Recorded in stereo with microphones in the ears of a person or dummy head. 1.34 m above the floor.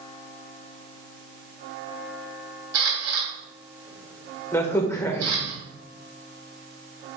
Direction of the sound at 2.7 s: 80° right.